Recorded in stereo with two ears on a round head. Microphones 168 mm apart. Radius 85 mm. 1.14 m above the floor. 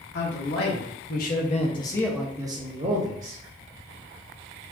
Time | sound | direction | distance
0.1 | a man speaking | 70° left (ahead or behind) | 1.7 m